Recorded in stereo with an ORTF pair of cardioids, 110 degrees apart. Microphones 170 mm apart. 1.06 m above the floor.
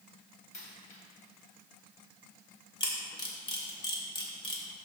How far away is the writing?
I don't hear writing.